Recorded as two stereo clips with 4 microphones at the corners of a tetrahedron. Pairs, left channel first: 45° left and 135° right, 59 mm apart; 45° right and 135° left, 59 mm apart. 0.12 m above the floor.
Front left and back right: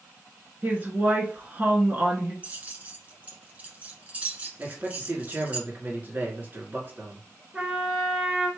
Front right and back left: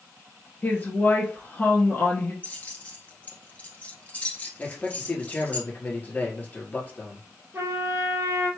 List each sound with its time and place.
0.6 s a woman speaking: 85° right, 1.8 m
2.4 s keys jangling: 85° right, 1.2 m
4.6 s a man speaking: 90° right, 1.9 m
7.5 s a trumpet: 160° left, 1.6 m